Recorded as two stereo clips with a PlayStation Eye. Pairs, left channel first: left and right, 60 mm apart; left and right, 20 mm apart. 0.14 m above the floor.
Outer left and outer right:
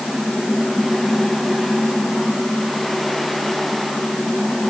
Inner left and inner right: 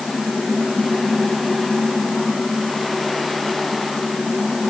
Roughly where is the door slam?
No door slam in this recording.